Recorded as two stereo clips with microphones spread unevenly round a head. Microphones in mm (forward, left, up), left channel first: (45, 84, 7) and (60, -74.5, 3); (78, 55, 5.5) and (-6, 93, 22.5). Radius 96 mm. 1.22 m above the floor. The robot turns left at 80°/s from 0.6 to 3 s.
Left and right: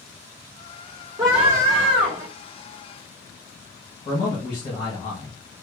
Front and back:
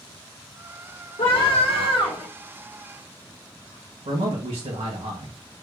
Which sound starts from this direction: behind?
A man speaking, at 4.0 s.